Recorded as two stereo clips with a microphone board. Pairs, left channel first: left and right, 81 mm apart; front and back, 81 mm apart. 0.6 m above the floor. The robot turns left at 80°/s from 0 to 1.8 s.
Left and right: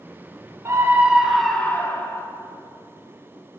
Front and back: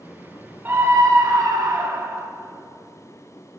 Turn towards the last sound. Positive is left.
turn(degrees=145)